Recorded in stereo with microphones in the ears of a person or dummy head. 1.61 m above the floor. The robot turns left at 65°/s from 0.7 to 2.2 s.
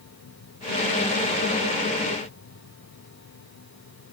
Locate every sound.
Only background noise.